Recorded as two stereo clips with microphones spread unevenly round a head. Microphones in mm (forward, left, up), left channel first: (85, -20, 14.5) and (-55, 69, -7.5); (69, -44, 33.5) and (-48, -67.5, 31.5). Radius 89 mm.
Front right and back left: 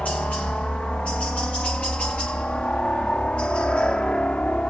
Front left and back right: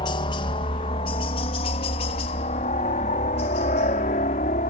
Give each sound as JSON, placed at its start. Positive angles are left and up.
{"t": 0.0, "sound": "a helicopter", "azimuth_deg": 55}